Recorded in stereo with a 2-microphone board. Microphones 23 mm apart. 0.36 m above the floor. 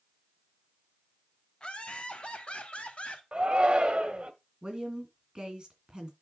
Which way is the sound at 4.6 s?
40° right (ahead or behind).